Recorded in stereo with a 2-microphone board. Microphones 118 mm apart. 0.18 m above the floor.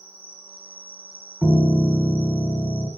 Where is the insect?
55° left (ahead or behind), 0.8 m.